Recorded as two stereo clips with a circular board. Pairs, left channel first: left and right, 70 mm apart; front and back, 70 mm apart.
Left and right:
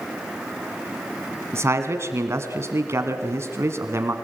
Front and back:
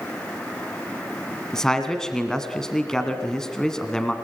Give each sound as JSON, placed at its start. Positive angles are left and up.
{"t": 1.5, "sound": "a man speaking", "azimuth_deg": -80, "distance_m": 1.7}